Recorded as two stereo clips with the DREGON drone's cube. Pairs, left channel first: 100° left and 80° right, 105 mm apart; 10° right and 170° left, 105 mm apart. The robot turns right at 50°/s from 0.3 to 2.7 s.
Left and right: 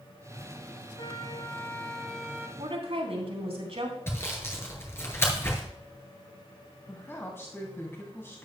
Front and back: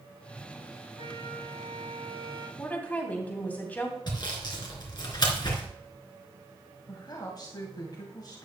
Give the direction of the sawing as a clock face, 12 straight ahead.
11 o'clock.